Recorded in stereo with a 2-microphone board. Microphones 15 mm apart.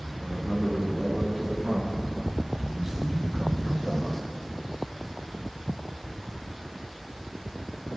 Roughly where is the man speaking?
Right.